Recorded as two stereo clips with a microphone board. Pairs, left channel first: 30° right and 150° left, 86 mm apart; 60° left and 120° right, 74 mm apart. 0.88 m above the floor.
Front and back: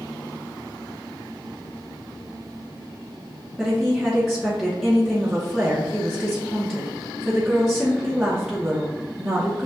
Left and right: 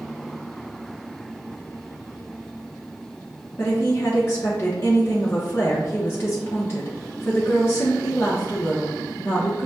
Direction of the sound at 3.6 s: 60° left.